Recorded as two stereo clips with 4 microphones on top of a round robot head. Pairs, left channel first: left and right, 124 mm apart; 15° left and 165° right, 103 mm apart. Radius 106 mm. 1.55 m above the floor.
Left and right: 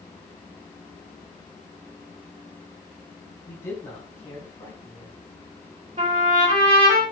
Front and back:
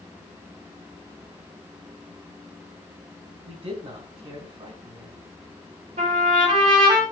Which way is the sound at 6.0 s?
140° right.